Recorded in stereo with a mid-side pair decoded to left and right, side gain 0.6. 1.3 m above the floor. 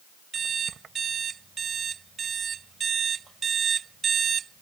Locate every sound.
0.3 s an alarm clock: 40° right